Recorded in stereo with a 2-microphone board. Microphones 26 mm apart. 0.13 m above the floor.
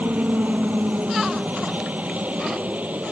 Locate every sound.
0.0 s a helicopter: 65° right (ahead or behind)